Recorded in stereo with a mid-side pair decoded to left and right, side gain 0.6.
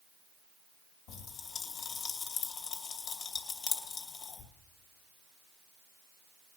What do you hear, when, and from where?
1.1 s a pop: 65° left, 2.5 m